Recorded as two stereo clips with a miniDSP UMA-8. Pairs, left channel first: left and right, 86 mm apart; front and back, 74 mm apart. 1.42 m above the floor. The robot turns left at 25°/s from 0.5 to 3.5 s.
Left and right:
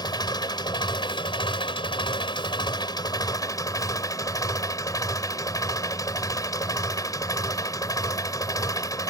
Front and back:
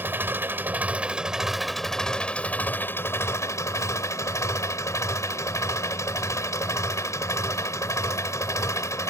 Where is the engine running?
120° left; by 9.1 s 45° left.